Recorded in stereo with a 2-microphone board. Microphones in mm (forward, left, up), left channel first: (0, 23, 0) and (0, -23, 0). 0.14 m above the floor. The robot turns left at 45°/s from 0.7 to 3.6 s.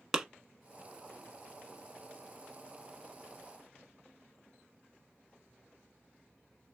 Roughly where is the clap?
Centre.